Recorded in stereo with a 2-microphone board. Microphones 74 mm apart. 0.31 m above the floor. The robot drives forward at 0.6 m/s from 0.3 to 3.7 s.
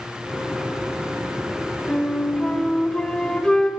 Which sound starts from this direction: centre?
A flute, at 1.9 s.